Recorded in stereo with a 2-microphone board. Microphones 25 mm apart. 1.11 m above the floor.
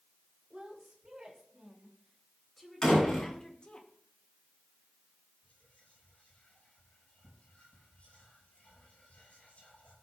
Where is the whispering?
65° left (ahead or behind), 6.5 m.